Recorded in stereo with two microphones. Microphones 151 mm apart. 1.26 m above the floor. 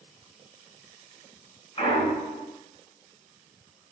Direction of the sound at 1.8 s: 40° left (ahead or behind).